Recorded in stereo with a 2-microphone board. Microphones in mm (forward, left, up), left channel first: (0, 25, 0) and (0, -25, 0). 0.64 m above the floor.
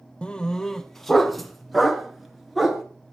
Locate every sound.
0.2 s a dog barking: 20° left (ahead or behind), 0.8 m; by 2.8 s 5° right (ahead or behind), 2.5 m